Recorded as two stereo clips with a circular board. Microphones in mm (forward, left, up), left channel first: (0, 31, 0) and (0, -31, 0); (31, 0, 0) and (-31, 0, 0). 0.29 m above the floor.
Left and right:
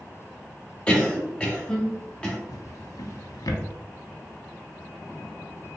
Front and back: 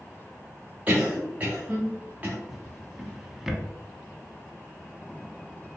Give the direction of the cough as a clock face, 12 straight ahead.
7 o'clock.